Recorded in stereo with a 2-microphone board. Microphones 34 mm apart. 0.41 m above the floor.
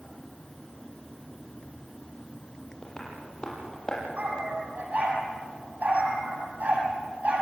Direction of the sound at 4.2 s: 50° right (ahead or behind).